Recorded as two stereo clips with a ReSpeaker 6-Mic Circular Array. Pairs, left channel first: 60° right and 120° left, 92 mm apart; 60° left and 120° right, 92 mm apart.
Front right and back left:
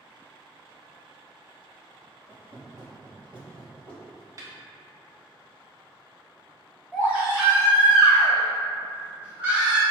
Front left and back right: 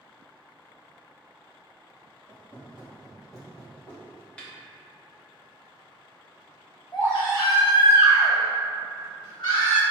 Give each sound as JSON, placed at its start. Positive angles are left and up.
{"t": 2.3, "sound": "footsteps", "azimuth_deg": 75, "distance_m": 2.0}
{"t": 4.4, "sound": "a snare drum", "azimuth_deg": 130, "distance_m": 0.8}
{"t": 6.9, "sound": "a baby crying", "azimuth_deg": 50, "distance_m": 1.8}